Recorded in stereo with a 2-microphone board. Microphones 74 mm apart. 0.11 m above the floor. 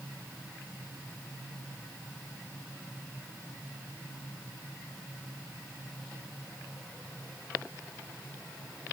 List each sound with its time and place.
Only background noise.